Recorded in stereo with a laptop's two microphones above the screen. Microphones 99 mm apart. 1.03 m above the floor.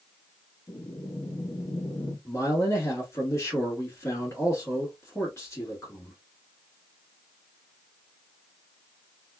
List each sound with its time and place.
0.7 s breathing: 45° left (ahead or behind), 1.1 m
2.2 s a man speaking: 35° left (ahead or behind), 2 m